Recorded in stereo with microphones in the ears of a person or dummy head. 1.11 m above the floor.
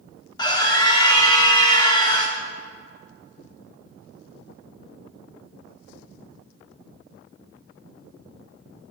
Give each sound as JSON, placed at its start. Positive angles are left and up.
{"t": 0.4, "sound": "a scream", "side_deg": 20, "distance_m": 1.0}